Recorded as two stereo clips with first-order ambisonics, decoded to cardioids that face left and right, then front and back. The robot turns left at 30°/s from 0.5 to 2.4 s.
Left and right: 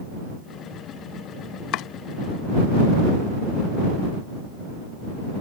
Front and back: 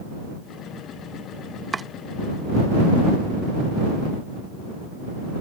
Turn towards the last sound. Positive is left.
turn(degrees=90)